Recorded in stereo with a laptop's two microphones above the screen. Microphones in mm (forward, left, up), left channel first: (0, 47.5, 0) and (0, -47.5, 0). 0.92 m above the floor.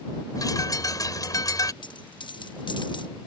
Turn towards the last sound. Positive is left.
turn(degrees=55)  # may be behind; listen again after turning